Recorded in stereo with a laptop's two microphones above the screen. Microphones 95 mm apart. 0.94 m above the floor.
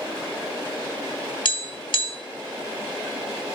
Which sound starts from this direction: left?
Tapping, at 1.4 s.